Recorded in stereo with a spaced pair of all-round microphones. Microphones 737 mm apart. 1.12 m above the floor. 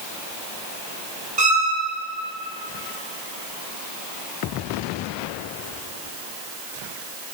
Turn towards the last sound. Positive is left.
turn(degrees=-65)  # may be behind; listen again after turning